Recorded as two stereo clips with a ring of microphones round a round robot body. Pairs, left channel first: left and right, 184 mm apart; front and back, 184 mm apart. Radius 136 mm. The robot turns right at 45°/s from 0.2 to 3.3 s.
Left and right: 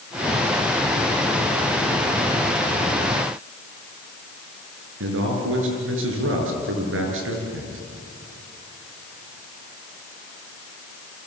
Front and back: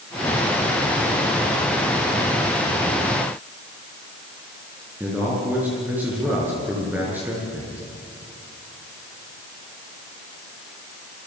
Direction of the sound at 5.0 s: 95° right.